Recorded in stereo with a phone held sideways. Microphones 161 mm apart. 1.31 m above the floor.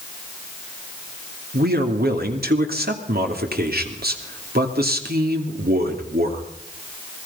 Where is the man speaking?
75° right (ahead or behind), 3 m.